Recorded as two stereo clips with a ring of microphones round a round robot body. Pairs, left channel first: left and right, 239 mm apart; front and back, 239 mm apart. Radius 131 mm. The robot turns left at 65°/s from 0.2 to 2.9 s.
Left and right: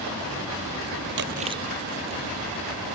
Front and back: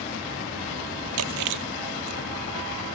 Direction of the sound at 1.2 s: 140° right.